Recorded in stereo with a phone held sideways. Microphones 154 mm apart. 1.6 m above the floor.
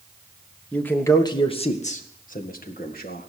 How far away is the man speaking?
About 1.3 m.